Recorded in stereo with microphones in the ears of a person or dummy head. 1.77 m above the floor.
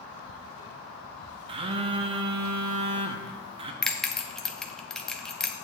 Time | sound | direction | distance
1.5 | a phone buzzing | 30° right (ahead or behind) | 0.6 m
3.8 | a bell | 5° left (ahead or behind) | 0.5 m